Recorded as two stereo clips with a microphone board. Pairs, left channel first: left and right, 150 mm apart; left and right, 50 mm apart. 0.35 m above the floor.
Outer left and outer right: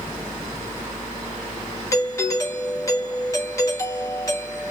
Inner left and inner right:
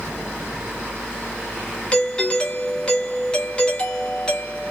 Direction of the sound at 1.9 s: 20° left (ahead or behind).